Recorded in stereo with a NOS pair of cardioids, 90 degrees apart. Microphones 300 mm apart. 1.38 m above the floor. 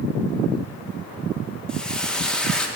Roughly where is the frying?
Ahead.